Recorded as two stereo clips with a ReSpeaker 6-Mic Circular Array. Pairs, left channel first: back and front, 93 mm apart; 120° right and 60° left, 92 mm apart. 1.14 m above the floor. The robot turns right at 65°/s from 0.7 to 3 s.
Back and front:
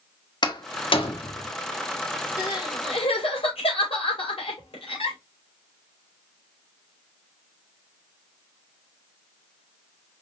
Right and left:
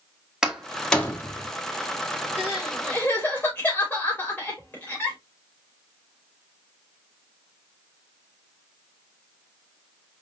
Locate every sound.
0.4 s a door slam: 145° left, 1.1 m; by 1.5 s 165° right, 1.1 m
2.4 s crying: 130° left, 3 m; by 5.2 s 170° left, 3 m